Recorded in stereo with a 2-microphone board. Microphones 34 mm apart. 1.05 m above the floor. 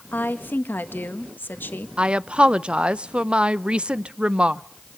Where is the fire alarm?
No fire alarm in this recording.